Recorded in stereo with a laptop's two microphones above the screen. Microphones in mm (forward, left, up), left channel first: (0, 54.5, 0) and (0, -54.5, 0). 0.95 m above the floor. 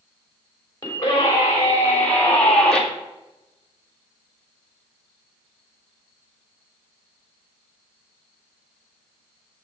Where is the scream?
35° left (ahead or behind), 3.5 m; by 2.8 s 5° left (ahead or behind), 2 m.